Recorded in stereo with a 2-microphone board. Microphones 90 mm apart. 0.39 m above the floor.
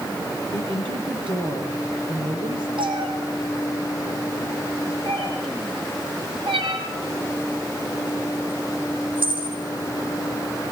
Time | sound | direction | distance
0.5 | a woman speaking | 65° right (ahead or behind) | 9.5 m
2.8 | a cat meowing | 70° right (ahead or behind) | 6.5 m